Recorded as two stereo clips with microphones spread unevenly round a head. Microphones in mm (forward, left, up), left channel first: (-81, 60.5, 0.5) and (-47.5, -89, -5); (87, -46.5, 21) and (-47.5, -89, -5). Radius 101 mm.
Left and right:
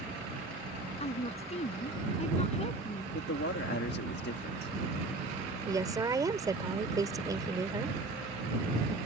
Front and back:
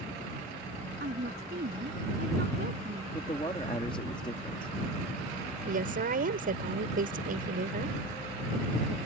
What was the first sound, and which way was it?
A woman speaking, 150° left.